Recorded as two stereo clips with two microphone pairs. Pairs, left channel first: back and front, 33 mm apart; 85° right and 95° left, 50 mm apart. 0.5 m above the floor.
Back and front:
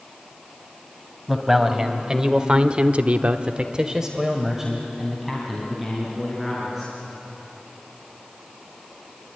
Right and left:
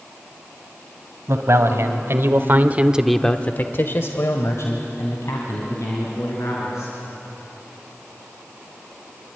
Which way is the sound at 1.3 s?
75° left.